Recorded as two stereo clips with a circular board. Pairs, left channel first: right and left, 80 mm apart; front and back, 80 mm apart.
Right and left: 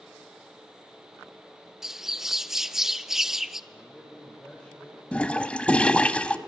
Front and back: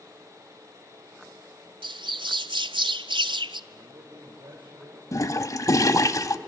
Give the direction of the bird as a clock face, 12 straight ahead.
6 o'clock.